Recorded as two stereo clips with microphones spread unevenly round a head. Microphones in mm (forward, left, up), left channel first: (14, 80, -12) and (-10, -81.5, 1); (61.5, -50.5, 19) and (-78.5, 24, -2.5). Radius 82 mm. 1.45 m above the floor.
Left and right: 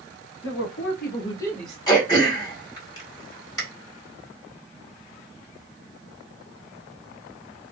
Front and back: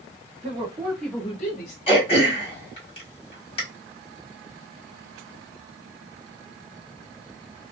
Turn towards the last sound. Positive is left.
turn(degrees=15)